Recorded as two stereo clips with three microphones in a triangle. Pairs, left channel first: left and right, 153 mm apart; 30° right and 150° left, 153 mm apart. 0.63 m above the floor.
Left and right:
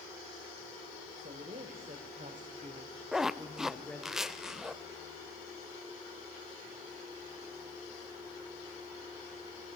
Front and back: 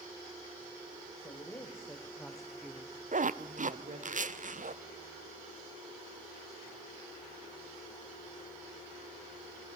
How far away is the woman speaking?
About 2.5 m.